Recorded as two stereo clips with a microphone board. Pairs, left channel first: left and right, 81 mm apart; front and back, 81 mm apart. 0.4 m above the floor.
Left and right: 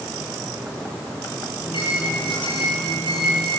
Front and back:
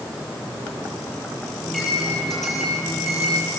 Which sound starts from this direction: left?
A microwave, at 1.6 s.